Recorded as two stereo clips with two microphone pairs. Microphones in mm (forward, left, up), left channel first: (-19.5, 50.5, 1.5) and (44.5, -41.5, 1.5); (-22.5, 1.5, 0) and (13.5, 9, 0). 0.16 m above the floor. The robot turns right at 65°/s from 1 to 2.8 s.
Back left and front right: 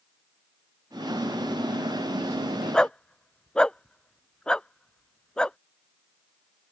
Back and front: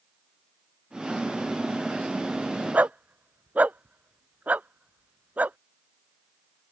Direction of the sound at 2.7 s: 40° left.